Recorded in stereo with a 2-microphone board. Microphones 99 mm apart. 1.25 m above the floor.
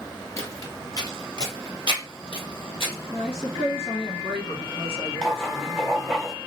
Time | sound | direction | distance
0.4 | footsteps | 30° left (ahead or behind) | 1.4 m
3.1 | a woman speaking | 75° left (ahead or behind) | 1.2 m
5.2 | writing | 5° left (ahead or behind) | 1.2 m